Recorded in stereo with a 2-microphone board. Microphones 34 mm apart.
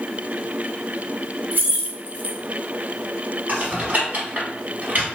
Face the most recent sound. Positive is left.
turn(degrees=-50)  # may be behind; listen again after turning